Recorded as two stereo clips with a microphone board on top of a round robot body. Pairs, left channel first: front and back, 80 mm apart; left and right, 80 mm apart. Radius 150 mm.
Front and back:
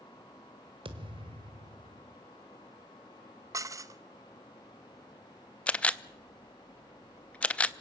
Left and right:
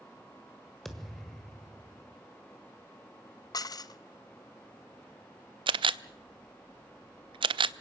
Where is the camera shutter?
75° right, 0.5 m.